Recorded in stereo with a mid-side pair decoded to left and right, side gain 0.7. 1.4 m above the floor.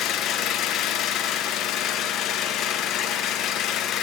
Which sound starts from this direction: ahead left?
An engine running, at 0.0 s.